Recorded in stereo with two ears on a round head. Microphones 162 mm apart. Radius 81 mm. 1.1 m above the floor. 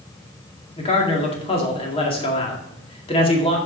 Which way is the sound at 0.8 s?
30° left (ahead or behind).